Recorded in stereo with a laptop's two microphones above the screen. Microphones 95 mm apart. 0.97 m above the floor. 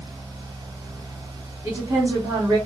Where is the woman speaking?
25° right (ahead or behind), 2 m.